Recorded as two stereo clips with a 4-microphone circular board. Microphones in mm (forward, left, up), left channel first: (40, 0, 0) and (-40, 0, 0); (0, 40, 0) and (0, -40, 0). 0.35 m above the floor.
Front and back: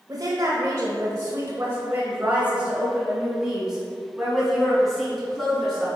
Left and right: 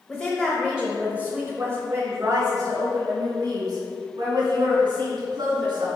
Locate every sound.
0.1 s a woman speaking: 170° left, 1.2 m; by 5.9 s 90° right, 3 m